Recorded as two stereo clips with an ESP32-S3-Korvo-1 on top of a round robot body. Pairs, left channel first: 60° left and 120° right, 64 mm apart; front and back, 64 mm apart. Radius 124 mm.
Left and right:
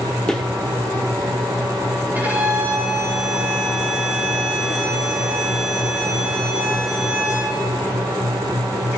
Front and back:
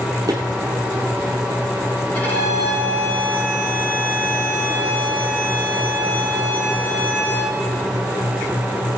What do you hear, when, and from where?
0.3 s footsteps: 135° left, 0.6 m
2.1 s a violin: 60° right, 8 m